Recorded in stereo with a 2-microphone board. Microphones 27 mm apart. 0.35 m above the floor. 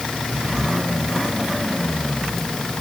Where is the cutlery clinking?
No cutlery clinking in this recording.